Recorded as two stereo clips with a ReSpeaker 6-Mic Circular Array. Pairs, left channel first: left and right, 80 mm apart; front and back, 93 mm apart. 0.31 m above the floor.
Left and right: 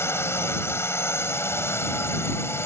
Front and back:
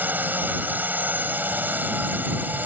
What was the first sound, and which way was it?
A drone, 120° left.